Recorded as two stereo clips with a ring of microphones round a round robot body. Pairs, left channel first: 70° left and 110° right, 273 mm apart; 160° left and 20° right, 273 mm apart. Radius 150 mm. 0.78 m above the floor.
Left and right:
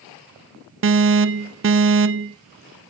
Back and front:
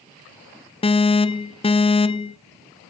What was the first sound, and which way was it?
An alarm, 135° right.